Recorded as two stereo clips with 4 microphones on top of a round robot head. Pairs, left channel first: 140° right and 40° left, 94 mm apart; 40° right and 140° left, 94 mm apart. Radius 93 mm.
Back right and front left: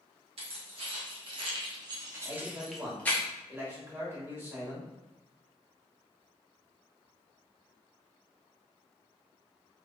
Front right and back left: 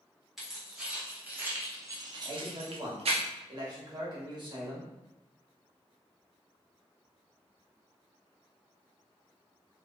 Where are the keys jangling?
55° left, 1.5 m; by 3.2 s 150° left, 0.8 m.